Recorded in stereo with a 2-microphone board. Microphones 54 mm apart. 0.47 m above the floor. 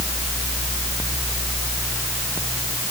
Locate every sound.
Only background noise.